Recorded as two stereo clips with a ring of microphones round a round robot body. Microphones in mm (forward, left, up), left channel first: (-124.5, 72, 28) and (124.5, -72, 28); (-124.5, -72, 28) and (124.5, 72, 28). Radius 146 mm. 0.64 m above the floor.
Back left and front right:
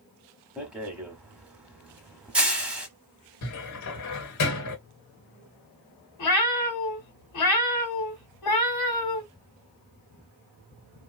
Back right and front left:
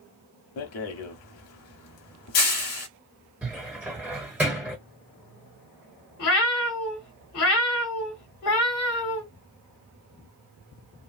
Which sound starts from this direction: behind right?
A rattle, at 0.6 s.